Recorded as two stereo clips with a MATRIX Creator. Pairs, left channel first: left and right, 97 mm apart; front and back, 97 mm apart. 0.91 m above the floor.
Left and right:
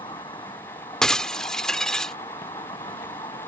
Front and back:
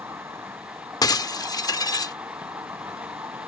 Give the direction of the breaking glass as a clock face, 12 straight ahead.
12 o'clock.